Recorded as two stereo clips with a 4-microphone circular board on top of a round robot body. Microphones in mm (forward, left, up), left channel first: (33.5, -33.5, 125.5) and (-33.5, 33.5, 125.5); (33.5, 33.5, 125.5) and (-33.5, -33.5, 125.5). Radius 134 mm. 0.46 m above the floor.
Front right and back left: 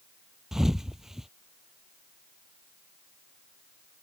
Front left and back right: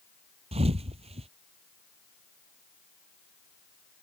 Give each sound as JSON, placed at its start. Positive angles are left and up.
{"t": 0.5, "sound": "a thud", "azimuth_deg": -140}